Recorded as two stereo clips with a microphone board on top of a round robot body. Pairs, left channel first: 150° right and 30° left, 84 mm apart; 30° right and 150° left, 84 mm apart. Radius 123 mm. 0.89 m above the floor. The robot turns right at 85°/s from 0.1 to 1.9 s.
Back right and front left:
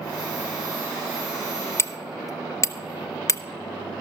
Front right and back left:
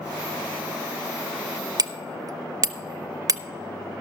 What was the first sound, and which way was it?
Hammering, 165° left.